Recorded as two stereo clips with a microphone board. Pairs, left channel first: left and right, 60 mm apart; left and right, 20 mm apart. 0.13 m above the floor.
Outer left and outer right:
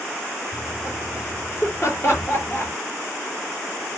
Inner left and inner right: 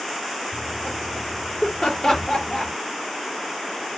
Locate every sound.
0.5 s laughter: 50° left (ahead or behind), 4 m; by 2.7 s 45° left (ahead or behind), 2.5 m